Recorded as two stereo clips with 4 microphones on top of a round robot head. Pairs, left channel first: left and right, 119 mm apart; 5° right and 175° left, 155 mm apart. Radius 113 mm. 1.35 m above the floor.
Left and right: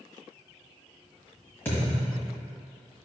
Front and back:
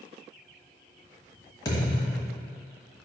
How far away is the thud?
About 1.2 m.